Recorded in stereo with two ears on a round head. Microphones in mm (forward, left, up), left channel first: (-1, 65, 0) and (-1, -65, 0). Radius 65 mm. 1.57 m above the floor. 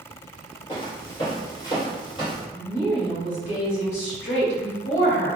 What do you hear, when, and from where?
0.7 s footsteps: 30° left (ahead or behind), 1.9 m; by 2.4 s 35° left (ahead or behind), 2.5 m
2.5 s a woman speaking: 50° left (ahead or behind), 1.5 m